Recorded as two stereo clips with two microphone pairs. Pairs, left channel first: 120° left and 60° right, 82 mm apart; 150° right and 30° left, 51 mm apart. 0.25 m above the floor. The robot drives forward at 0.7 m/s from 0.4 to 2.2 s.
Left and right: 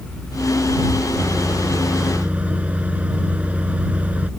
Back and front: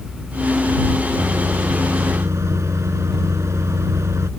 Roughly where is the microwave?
Ahead.